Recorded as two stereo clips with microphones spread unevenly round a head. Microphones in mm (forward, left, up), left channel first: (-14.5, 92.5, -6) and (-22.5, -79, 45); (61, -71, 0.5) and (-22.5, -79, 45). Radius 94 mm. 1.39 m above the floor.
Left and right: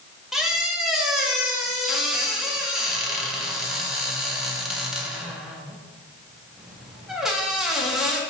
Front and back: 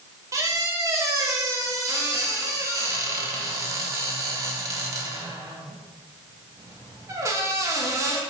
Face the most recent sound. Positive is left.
turn(degrees=-170)